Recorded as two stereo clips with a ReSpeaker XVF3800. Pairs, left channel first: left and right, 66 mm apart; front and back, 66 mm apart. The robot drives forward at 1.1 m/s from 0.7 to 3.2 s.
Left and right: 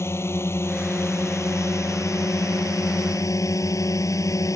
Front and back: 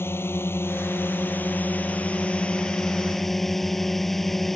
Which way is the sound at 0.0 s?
50° left.